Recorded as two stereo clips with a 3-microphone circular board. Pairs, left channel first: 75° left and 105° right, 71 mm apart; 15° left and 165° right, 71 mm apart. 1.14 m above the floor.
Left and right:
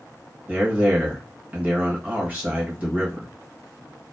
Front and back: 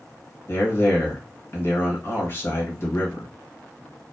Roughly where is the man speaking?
Ahead right.